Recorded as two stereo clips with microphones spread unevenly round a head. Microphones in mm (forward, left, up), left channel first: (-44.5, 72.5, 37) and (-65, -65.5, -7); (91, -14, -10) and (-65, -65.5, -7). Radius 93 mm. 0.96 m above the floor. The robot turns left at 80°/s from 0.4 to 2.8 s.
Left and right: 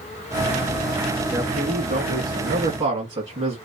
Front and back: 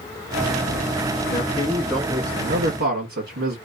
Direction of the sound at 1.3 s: 25° right.